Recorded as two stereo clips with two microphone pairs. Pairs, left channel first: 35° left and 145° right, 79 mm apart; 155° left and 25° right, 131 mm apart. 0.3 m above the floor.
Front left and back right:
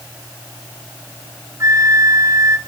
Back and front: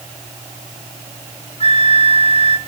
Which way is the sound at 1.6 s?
Straight behind.